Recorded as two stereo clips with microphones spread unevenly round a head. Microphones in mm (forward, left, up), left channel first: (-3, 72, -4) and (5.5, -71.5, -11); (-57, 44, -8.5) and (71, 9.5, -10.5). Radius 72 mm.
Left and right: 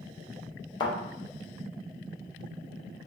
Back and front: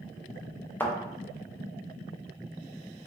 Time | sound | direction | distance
0.8 | a thud | 105° left | 0.6 m